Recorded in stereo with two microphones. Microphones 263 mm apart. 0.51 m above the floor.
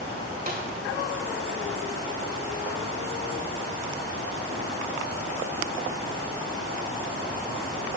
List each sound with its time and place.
0.5 s a snare drum: 35° right (ahead or behind), 2.5 m